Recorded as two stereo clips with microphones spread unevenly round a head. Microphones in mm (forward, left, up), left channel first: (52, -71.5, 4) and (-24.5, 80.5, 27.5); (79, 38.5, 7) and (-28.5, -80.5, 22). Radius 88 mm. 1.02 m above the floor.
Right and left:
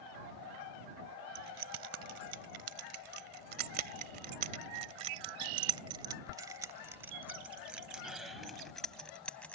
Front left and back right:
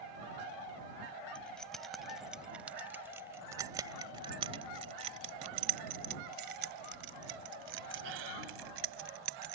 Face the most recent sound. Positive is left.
turn(degrees=-150)